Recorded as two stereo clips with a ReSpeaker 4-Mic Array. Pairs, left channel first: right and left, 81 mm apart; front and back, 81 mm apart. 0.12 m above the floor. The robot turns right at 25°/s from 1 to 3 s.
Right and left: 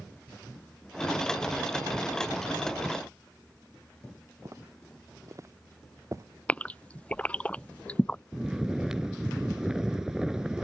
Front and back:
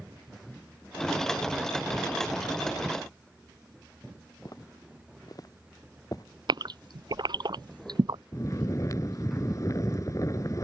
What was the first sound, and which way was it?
Footsteps, 40° left.